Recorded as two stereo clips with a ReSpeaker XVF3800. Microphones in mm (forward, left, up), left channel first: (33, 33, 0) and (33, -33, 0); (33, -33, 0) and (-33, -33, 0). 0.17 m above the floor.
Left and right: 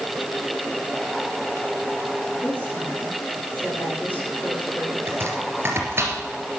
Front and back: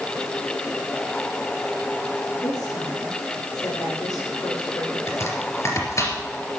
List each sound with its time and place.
2.4 s a woman speaking: 30° left, 7.5 m
5.1 s chopping: 40° right, 3 m